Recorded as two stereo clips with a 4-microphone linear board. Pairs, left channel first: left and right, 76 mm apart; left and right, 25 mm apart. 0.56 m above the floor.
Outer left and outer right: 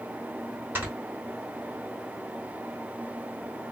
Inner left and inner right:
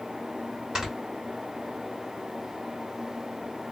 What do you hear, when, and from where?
0.8 s snoring: 25° right (ahead or behind), 2.5 m